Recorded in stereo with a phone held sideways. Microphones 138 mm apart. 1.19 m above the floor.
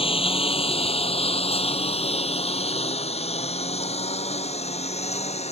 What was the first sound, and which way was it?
A lawn mower, 45° left (ahead or behind).